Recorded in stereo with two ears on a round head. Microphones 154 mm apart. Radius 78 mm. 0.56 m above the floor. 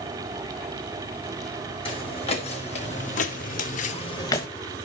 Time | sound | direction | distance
1.9 | footsteps | 35° left (ahead or behind) | 2.5 m